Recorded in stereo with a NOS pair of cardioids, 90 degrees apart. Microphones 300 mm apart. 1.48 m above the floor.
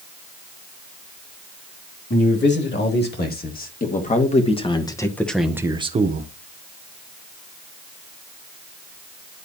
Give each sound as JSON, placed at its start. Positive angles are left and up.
{"t": 2.1, "sound": "a man speaking", "azimuth_deg": 40, "distance_m": 2.5}